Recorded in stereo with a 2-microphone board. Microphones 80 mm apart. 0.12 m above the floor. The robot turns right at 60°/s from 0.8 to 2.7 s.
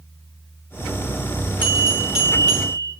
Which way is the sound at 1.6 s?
45° right.